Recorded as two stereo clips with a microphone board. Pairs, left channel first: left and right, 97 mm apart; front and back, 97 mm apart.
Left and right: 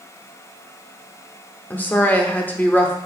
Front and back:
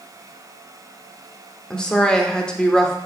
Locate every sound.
1.7 s a woman speaking: 65° left, 0.8 m